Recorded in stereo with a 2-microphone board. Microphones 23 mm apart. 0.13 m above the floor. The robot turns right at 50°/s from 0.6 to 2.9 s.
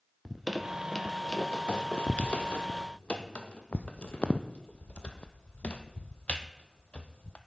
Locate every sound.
0.2 s a squeak: centre (ahead or behind), 0.9 m; by 7.4 s 65° left (ahead or behind), 0.9 m